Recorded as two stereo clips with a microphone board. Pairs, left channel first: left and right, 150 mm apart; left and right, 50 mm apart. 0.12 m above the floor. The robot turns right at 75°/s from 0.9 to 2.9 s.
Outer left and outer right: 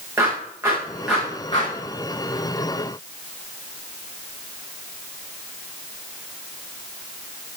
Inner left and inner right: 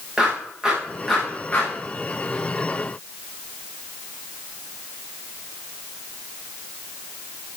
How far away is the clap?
About 7.5 m.